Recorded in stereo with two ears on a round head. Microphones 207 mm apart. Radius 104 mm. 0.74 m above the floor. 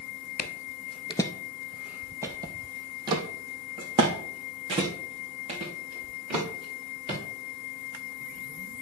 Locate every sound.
0.4 s footsteps: 40° left (ahead or behind), 0.9 m; by 7.2 s 25° right (ahead or behind), 6 m